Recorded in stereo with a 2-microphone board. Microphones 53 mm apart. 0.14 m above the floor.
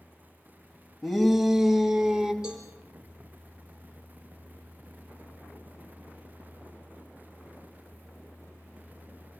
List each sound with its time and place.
1.0 s a shout: centre (ahead or behind), 2 m; by 2.3 s 10° right (ahead or behind), 1.8 m
2.4 s a cowbell: 10° right (ahead or behind), 6.5 m